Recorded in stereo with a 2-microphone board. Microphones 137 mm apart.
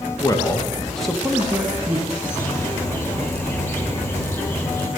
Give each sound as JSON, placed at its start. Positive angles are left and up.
{"t": 0.2, "sound": "a man speaking", "side_deg": 30, "distance_m": 1.1}
{"t": 2.1, "sound": "a bird", "side_deg": 15, "distance_m": 1.4}